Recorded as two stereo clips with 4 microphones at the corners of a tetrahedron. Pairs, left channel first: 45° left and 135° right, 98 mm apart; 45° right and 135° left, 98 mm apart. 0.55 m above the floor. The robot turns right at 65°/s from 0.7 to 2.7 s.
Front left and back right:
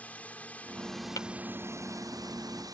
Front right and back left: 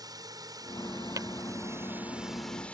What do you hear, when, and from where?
0.0 s a drone: 115° left; by 2.8 s 115° right
1.2 s tapping: 90° left; by 1.3 s 95° left